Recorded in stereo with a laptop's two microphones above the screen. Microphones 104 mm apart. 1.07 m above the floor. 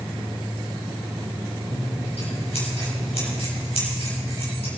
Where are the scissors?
70° left (ahead or behind), 6 m.